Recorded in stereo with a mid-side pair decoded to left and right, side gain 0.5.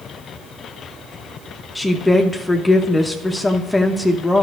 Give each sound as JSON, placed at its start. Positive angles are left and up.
{"t": 1.8, "sound": "a woman speaking", "azimuth_deg": 15, "distance_m": 1.0}